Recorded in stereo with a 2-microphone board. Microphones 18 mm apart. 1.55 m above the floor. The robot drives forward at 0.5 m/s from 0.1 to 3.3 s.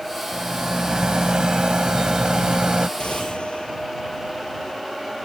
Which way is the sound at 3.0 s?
85° left.